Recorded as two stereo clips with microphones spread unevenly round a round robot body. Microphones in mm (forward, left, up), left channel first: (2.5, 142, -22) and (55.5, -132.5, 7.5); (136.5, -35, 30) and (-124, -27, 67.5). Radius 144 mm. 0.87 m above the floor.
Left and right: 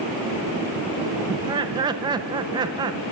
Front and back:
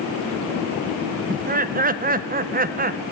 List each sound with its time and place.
1.3 s laughter: 150° right, 0.6 m